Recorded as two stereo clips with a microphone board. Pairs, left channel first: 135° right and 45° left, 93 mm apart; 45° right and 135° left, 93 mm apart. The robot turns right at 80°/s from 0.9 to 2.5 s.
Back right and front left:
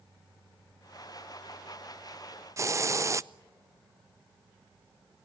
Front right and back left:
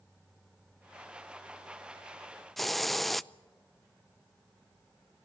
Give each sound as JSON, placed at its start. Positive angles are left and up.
{"t": 2.6, "sound": "a hiss", "azimuth_deg": 40, "distance_m": 0.5}